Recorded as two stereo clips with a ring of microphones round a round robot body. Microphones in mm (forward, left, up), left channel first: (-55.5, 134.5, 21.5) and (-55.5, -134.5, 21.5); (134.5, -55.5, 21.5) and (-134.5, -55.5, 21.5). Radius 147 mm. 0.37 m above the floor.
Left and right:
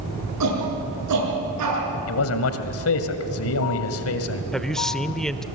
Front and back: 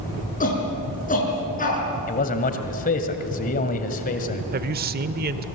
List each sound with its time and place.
0.4 s a shout: 60° right, 7 m
2.1 s a man speaking: 60° left, 1.8 m
4.5 s a man speaking: 175° left, 0.9 m